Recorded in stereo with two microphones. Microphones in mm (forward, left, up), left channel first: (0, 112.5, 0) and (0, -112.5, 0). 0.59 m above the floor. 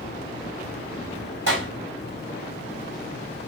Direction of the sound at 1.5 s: 60° right (ahead or behind).